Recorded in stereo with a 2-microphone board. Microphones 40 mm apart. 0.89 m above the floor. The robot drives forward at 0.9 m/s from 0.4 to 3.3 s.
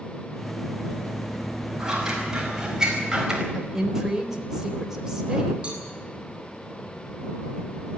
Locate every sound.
1.8 s scissors: 15° right (ahead or behind), 6 m
3.5 s a woman speaking: 10° right (ahead or behind), 4 m
5.6 s a cowbell: 30° right (ahead or behind), 8 m